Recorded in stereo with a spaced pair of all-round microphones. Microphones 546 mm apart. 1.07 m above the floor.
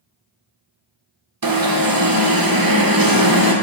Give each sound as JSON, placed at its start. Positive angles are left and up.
{"t": 1.4, "sound": "an alarm", "side_deg": -40, "distance_m": 0.6}